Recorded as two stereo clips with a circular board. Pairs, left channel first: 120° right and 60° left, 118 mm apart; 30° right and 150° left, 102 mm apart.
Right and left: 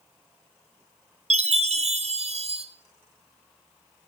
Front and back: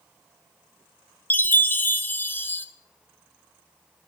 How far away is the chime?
About 0.6 m.